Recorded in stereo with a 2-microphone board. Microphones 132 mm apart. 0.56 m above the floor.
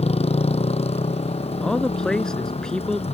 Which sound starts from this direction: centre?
A man speaking, at 1.6 s.